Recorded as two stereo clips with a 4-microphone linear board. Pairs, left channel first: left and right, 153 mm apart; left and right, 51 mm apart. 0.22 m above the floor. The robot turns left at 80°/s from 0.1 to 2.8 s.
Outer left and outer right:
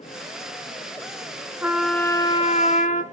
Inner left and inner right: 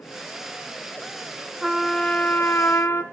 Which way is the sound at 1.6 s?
165° right.